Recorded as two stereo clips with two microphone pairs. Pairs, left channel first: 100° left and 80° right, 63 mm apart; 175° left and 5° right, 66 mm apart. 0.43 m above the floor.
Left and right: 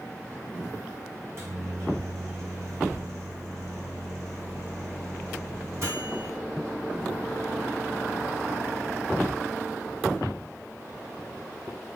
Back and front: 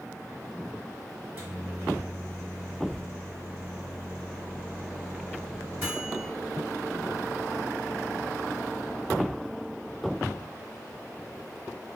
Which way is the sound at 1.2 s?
60° right.